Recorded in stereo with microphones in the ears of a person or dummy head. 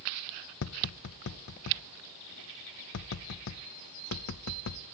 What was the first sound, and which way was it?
Tapping, 65° left (ahead or behind).